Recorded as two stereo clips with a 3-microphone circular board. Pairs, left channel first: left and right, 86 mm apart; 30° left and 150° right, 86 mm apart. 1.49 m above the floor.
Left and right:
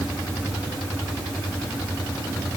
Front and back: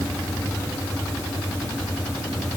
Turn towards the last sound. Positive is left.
No sound to turn to.